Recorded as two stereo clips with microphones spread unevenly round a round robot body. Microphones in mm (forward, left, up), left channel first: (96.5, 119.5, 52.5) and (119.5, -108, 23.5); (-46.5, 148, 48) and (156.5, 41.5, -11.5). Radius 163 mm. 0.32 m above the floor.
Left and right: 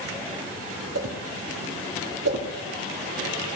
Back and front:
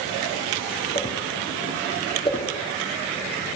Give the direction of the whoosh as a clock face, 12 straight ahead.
4 o'clock.